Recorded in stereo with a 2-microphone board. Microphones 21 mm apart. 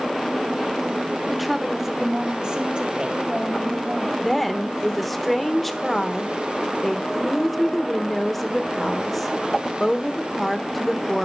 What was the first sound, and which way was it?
A woman speaking, centre (ahead or behind).